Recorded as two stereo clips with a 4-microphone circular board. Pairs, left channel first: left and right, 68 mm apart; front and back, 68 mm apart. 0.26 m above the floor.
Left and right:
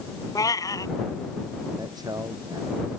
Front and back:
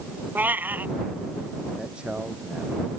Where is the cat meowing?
120° left.